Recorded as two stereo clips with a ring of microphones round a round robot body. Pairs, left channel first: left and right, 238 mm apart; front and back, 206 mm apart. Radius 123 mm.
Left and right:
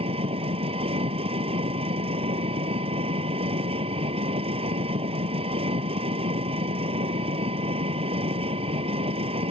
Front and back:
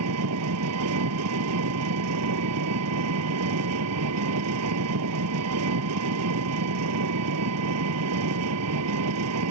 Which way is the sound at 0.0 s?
160° right.